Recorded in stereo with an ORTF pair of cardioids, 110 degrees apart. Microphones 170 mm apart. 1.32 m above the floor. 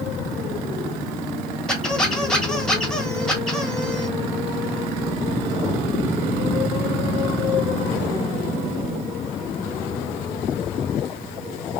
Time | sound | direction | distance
1.7 | a squeak | 5° left | 1.2 m